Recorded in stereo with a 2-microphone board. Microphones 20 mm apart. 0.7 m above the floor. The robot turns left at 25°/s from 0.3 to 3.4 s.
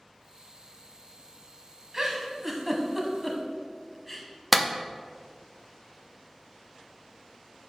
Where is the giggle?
30° right (ahead or behind), 1.2 m; by 4.3 s 5° left (ahead or behind), 1.2 m.